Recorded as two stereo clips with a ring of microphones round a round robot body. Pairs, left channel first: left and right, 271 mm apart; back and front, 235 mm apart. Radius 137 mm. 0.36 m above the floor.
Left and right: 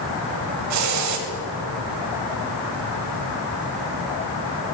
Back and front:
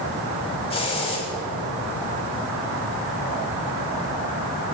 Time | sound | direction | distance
0.7 | a hiss | 110° right | 0.9 m